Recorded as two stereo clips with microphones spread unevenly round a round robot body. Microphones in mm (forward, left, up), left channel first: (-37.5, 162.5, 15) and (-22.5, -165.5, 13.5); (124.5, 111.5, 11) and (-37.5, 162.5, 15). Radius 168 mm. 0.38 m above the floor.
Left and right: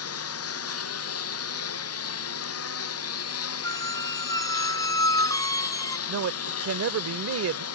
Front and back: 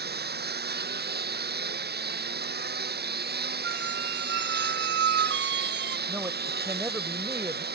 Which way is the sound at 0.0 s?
140° left.